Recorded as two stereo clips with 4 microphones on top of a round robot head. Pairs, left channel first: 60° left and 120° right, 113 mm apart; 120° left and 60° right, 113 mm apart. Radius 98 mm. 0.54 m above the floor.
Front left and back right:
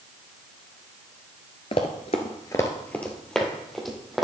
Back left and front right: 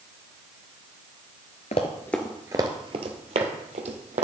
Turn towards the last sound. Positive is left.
turn(degrees=-30)